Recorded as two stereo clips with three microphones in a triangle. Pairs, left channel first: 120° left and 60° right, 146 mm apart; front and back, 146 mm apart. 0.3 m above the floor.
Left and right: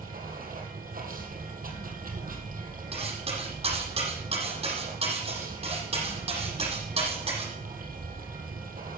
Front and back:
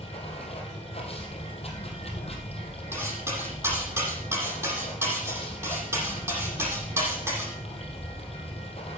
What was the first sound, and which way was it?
Running water, 45° right.